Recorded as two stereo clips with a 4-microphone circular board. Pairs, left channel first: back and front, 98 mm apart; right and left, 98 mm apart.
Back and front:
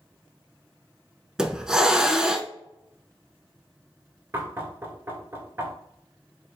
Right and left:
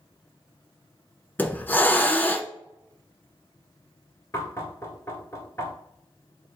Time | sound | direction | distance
1.4 | a hiss | 70° right | 0.5 m
4.3 | knocking | 50° right | 1.3 m